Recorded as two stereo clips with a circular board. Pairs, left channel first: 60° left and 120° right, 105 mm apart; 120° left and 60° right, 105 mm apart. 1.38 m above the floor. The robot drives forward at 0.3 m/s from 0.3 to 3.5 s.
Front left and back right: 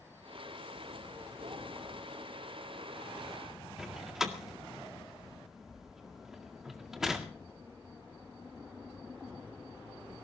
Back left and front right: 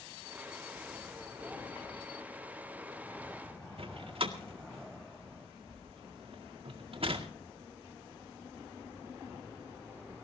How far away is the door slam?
About 1.9 m.